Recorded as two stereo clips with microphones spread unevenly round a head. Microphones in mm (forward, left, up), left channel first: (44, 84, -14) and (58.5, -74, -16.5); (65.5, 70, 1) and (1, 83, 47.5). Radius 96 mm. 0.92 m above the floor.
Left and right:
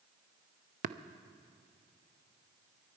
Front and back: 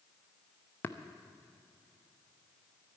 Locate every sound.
0.8 s tapping: 50° right, 0.5 m